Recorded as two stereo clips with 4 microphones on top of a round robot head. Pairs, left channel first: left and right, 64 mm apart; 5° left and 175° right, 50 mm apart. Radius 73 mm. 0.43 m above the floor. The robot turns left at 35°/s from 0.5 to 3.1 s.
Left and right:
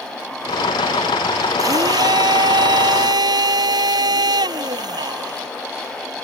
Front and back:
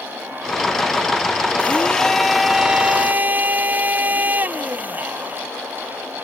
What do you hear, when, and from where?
1.6 s a blender: 60° right; by 5.5 s 110° right